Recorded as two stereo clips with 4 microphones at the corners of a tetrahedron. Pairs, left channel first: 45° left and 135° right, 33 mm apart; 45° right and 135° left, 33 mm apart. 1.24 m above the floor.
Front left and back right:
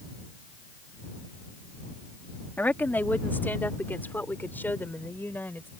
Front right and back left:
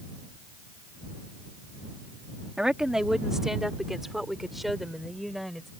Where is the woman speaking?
65° left; by 5.7 s 40° left.